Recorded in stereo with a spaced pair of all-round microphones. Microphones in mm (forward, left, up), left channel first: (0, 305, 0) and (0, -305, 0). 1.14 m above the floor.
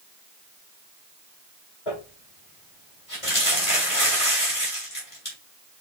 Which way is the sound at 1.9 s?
70° left (ahead or behind).